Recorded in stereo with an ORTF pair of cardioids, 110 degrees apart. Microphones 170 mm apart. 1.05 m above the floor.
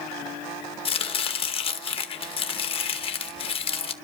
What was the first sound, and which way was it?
Chopping, 35° left.